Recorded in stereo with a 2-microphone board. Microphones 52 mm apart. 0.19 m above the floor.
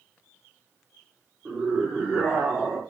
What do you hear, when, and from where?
1.4 s a scream: 15° right (ahead or behind), 7 m